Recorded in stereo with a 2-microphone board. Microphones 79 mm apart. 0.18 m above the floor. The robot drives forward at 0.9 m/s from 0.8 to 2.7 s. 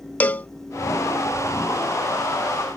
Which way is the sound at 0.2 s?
20° left (ahead or behind).